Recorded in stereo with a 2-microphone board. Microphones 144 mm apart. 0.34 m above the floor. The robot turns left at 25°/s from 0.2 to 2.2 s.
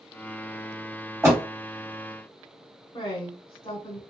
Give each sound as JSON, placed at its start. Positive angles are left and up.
{"t": 1.2, "sound": "a door slam", "side_deg": -20, "distance_m": 1.5}
{"t": 2.9, "sound": "a woman speaking", "side_deg": 25, "distance_m": 1.1}